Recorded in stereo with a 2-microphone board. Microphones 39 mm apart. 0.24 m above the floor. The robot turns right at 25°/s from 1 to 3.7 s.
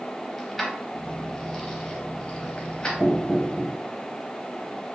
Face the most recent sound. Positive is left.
turn(degrees=-15)  # may be behind; listen again after turning